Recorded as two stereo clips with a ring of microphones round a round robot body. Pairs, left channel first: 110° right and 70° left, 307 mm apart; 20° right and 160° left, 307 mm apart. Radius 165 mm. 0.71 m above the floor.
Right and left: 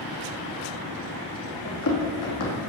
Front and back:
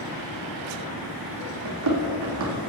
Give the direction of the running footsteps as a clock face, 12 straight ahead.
5 o'clock.